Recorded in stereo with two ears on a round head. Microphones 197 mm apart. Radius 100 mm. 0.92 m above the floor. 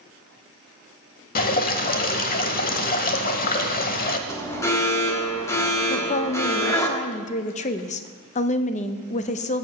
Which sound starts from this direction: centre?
An alarm, at 4.3 s.